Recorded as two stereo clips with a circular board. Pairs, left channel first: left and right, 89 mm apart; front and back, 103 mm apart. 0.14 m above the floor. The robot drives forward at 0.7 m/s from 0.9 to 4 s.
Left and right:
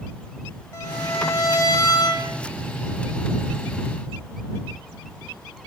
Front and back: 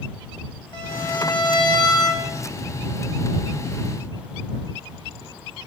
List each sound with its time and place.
0.7 s a violin: 35° left, 3.5 m; by 2.3 s 50° left, 2.5 m